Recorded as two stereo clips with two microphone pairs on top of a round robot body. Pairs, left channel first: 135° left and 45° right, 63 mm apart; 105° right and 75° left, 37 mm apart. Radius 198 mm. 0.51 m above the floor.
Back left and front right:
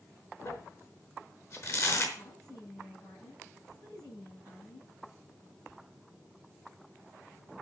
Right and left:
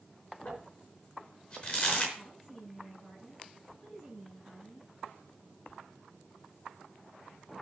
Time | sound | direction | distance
0.5 | crumpling | straight behind | 4 m
2.1 | a woman speaking | 155° left | 8.5 m